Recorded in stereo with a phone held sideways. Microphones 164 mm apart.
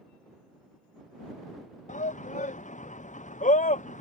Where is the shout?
50° left (ahead or behind).